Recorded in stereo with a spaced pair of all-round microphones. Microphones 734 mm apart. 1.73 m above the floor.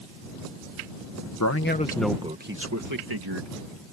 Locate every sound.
1.4 s a man speaking: 25° left (ahead or behind); by 3.5 s 35° right (ahead or behind)